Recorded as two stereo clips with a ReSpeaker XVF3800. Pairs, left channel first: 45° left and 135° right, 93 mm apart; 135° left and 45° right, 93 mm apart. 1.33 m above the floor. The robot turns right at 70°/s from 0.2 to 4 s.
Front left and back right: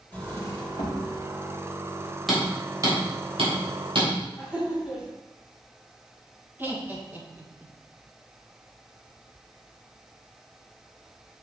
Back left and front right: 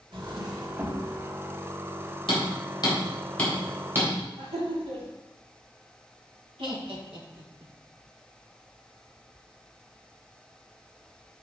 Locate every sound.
0.1 s a drawer: 25° right, 1.4 m; by 1.0 s 35° left, 1.4 m
2.3 s hammering: 135° left, 3.5 m; by 4.1 s 105° right, 3.5 m
4.4 s laughter: 55° right, 3 m
6.6 s laughter: 70° right, 1.9 m